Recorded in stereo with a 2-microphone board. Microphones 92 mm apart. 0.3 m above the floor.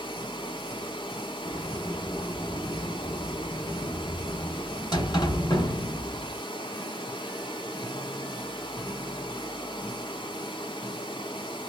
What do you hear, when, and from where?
0.0 s running water: 60° left (ahead or behind), 1.2 m
1.4 s a sliding door: 50° left (ahead or behind), 1.3 m